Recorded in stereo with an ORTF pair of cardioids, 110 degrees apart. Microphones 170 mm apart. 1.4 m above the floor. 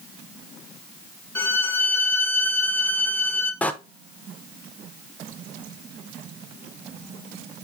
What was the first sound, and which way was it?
A violin, 10° left.